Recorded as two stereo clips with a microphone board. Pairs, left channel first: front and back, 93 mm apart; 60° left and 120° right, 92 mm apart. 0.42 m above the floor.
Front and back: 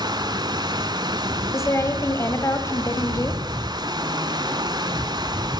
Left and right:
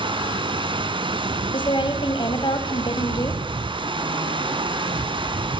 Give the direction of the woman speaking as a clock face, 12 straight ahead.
10 o'clock.